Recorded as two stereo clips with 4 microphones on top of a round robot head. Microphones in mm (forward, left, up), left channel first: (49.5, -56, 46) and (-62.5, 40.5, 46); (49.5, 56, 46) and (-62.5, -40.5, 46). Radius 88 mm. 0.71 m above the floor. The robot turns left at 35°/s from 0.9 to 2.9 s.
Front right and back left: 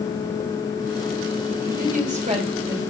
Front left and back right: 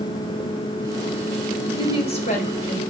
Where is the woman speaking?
105° left, 3.5 m; by 2.8 s 70° left, 3.5 m.